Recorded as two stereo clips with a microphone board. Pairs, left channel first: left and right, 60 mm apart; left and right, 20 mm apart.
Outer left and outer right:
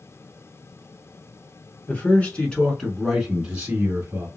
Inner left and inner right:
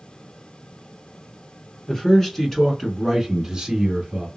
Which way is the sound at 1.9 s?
30° left (ahead or behind).